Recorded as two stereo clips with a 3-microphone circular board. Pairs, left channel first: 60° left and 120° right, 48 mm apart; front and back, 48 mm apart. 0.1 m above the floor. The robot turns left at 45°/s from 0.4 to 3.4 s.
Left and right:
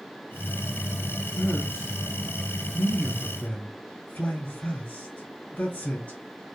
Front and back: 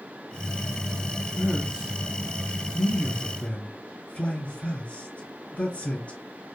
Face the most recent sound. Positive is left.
turn(degrees=40)